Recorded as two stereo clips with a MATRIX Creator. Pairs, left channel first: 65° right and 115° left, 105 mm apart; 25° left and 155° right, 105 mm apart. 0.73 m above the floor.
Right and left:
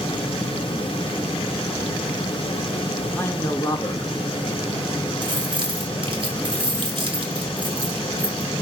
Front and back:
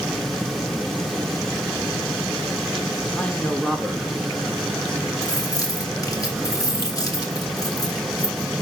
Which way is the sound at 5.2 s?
75° left.